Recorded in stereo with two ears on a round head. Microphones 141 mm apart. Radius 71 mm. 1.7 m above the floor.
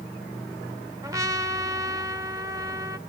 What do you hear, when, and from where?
1.0 s a trumpet: 20° right (ahead or behind), 0.7 m